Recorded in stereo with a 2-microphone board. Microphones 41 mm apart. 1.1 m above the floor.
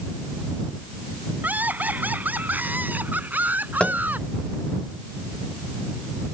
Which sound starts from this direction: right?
Laughter, at 1.4 s.